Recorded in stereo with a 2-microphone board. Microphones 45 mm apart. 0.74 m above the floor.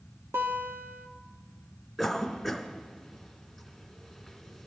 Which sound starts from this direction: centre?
A cough, at 2.0 s.